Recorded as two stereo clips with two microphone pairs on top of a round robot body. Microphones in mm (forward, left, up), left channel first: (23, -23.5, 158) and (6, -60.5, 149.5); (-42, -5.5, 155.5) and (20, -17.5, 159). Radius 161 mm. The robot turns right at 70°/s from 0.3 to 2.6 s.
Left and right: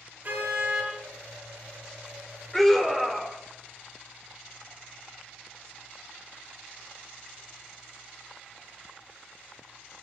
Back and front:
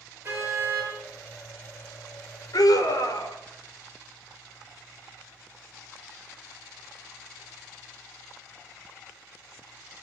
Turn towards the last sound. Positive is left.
turn(degrees=155)